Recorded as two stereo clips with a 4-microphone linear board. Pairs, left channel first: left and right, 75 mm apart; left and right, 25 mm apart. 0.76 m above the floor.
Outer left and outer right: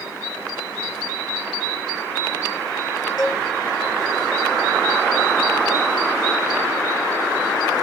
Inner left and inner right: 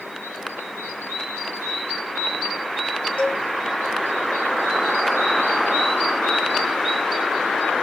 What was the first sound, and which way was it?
A cowbell, 55° left (ahead or behind).